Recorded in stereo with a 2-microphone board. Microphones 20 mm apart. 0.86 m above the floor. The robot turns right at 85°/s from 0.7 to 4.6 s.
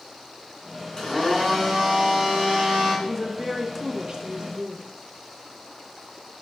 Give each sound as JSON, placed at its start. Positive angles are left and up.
{"t": 1.0, "sound": "a blender", "azimuth_deg": 145, "distance_m": 1.9}
{"t": 3.0, "sound": "a woman speaking", "azimuth_deg": 155, "distance_m": 0.6}